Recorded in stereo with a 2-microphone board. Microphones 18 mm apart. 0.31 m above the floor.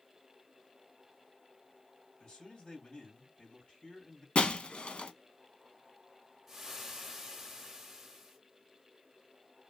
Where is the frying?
15° right (ahead or behind), 1.0 m.